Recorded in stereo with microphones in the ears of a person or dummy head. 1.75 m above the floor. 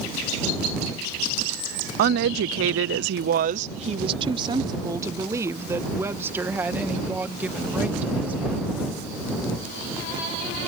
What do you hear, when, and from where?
2.0 s a woman speaking: 55° right (ahead or behind); by 8.9 s centre (ahead or behind)